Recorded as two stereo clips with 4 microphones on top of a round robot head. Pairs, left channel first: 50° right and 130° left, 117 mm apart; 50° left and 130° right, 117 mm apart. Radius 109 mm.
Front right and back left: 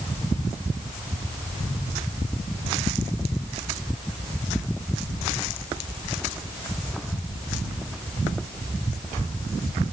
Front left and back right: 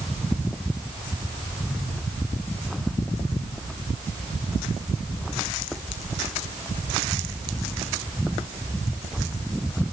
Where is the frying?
I don't hear frying.